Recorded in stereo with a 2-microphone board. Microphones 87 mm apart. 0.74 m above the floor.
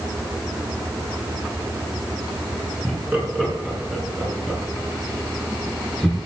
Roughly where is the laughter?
Centre.